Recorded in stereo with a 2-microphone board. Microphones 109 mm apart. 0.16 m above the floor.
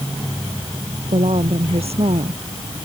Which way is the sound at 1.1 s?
70° right (ahead or behind).